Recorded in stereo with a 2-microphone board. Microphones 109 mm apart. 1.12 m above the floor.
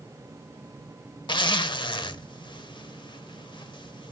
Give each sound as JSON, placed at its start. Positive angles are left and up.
{"t": 1.3, "sound": "a zipper", "side_deg": 45, "distance_m": 0.8}